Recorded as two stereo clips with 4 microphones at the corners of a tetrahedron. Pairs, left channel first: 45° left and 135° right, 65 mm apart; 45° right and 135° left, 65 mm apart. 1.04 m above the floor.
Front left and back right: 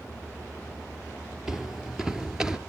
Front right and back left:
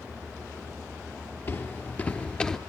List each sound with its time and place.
1.5 s footsteps: 50° right, 1.2 m; by 2.6 s 95° right, 1.0 m